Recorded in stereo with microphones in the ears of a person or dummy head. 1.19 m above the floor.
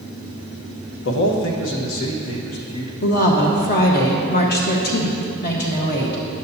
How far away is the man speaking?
About 1.1 m.